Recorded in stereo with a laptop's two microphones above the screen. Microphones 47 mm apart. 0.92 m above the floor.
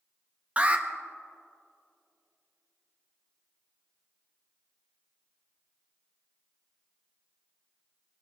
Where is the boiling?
I don't hear boiling.